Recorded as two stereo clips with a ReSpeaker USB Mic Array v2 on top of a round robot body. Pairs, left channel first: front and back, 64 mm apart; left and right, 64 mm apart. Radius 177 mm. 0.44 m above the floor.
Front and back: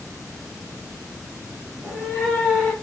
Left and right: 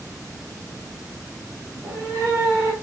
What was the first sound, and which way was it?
A cat meowing, 105° right.